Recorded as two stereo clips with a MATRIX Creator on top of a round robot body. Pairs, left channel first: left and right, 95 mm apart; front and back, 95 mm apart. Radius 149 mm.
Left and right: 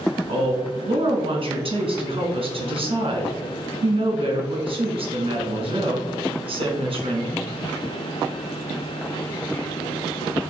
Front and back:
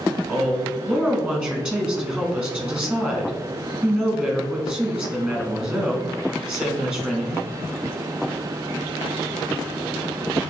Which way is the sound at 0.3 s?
100° right.